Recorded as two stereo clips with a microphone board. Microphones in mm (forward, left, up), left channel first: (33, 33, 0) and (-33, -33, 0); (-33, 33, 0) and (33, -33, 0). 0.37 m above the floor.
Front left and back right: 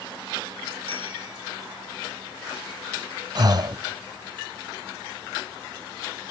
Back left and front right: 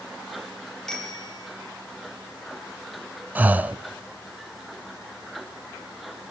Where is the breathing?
110° right, 0.9 m.